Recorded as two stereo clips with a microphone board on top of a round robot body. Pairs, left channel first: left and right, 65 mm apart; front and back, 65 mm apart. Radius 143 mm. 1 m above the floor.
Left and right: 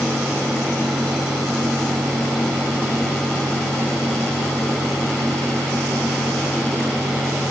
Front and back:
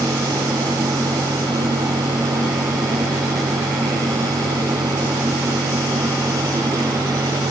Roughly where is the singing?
No singing in this recording.